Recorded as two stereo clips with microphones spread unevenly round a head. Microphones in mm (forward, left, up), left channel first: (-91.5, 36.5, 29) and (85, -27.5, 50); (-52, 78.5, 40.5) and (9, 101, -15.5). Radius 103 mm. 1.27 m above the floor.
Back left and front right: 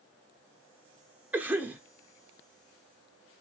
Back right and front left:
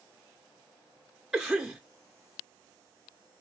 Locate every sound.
1.3 s a cough: 65° left, 0.7 m